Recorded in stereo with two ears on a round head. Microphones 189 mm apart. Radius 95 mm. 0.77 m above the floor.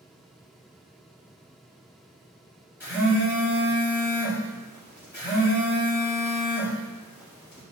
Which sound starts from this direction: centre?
A phone buzzing, at 2.8 s.